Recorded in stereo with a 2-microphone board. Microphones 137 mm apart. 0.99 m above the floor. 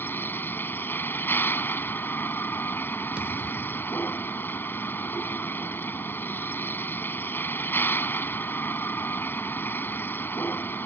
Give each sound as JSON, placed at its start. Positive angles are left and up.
{"t": 0.0, "sound": "a vehicle", "side_deg": 15}
{"t": 3.2, "sound": "a thud", "side_deg": -10}